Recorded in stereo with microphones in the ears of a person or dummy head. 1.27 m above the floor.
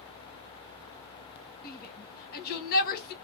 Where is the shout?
40° left (ahead or behind), 1.4 m.